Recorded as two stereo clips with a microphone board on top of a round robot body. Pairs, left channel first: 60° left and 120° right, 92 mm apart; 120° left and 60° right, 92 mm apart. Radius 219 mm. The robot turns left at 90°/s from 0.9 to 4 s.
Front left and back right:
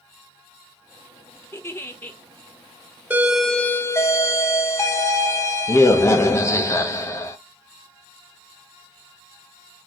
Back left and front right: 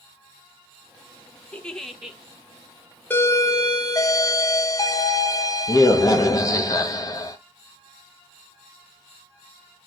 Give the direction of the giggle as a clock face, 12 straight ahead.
10 o'clock.